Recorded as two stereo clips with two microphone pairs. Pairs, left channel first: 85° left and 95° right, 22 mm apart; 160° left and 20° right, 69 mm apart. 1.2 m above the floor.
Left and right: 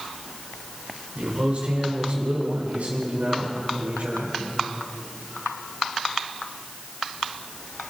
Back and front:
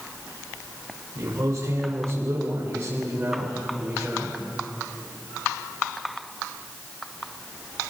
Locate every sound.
1.1 s a man speaking: 60° right, 3.5 m; by 4.4 s 95° right, 4 m